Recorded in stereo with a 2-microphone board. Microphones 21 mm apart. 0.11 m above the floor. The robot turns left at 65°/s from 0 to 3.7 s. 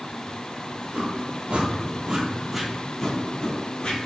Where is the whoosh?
60° right (ahead or behind), 0.7 m; by 4.0 s 60° left (ahead or behind), 0.7 m.